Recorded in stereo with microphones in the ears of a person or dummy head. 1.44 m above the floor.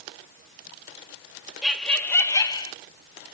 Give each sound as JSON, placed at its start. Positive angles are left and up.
{"t": 1.6, "sound": "laughter", "side_deg": -5, "distance_m": 0.8}